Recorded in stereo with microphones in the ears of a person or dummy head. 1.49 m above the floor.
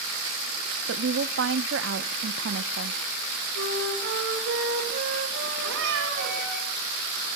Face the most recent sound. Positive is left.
turn(degrees=-75)  # may be behind; listen again after turning